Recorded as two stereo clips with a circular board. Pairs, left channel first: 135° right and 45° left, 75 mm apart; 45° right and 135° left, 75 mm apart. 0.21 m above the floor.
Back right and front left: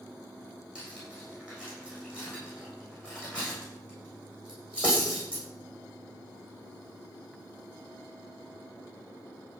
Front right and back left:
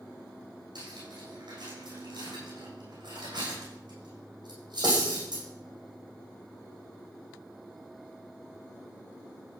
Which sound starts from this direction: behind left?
Cutlery clinking, at 0.8 s.